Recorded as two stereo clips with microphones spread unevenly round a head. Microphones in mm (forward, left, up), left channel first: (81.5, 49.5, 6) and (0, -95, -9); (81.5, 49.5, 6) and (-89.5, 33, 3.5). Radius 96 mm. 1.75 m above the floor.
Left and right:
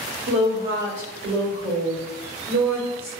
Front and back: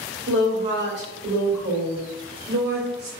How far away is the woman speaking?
About 1.9 m.